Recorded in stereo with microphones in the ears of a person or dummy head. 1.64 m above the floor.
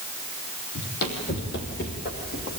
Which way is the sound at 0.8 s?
55° left (ahead or behind).